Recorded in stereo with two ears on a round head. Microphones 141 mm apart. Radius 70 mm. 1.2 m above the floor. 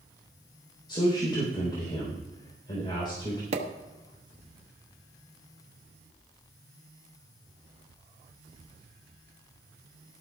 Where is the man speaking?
30° left (ahead or behind), 3.5 m.